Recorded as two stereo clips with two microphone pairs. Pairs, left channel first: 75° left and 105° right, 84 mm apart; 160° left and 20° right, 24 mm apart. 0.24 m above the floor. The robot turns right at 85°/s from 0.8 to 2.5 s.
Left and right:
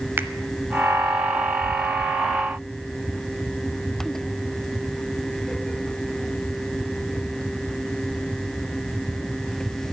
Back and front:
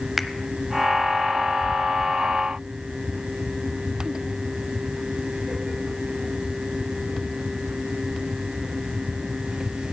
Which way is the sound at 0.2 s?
100° right.